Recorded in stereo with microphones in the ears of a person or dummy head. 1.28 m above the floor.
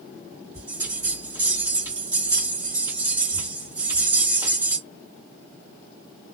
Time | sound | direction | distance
0.5 | a bell | 20° right (ahead or behind) | 1.6 m